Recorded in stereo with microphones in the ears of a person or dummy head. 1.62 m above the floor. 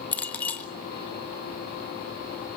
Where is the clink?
15° left (ahead or behind), 1.2 m.